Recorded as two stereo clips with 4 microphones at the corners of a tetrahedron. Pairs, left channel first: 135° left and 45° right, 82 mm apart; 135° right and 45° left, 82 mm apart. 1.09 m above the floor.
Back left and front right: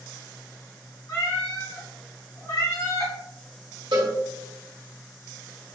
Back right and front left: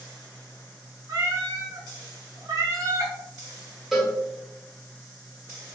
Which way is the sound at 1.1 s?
85° left.